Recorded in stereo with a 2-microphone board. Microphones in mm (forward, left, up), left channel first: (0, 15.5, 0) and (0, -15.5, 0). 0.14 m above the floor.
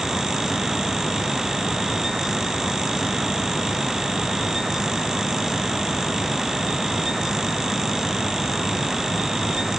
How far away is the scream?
No scream in this recording.